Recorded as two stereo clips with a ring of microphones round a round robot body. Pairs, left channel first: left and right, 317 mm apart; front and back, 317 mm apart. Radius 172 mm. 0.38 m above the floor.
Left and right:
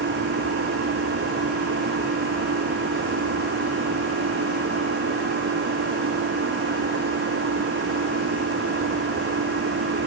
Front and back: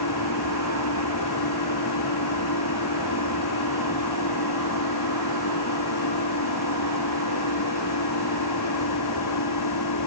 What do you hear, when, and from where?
0.0 s an engine running: 40° right